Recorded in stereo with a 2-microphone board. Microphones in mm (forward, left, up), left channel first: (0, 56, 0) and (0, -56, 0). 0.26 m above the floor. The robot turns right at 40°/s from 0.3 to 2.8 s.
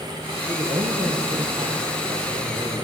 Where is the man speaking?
120° right, 6 m; by 2.8 s 25° right, 6 m.